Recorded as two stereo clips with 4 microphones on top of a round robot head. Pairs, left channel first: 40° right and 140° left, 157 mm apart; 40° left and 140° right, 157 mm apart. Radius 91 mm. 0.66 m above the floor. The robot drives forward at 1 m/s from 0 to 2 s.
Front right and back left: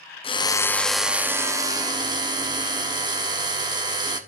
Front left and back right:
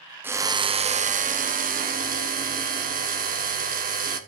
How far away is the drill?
About 1.0 m.